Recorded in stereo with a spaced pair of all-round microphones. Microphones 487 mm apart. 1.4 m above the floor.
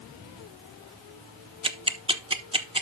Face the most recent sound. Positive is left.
turn(degrees=-10)  # may be behind; listen again after turning